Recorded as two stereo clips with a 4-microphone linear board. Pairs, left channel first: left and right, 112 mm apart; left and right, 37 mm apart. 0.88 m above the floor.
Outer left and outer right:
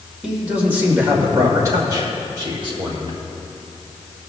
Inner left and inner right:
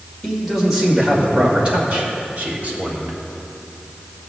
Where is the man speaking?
5° right (ahead or behind), 2.5 m; by 3.2 s 50° right (ahead or behind), 3 m.